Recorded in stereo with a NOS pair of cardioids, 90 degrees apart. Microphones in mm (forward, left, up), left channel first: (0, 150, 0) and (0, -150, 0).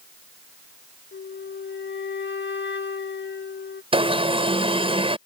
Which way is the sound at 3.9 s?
15° right.